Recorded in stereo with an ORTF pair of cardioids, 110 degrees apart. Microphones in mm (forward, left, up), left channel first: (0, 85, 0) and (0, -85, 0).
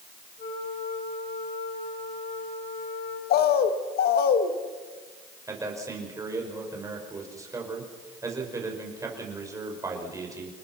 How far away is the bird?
About 1.8 m.